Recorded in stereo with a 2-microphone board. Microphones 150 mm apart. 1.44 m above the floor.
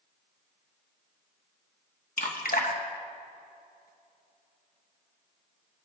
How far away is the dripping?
About 1.2 m.